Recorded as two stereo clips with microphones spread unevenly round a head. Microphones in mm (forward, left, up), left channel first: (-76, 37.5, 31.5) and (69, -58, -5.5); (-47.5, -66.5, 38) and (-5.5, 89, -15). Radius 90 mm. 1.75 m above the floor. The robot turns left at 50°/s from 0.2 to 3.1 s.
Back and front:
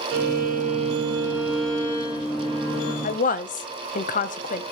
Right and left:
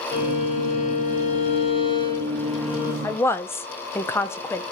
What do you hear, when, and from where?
0.1 s a violin: 60° right, 1.6 m; by 2.9 s 165° left, 1.6 m
3.0 s a woman speaking: 170° right, 0.7 m; by 4.6 s 175° right, 0.7 m